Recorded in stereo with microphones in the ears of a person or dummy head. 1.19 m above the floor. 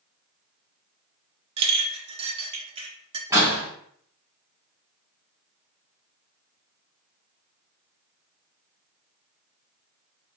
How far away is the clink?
About 0.6 m.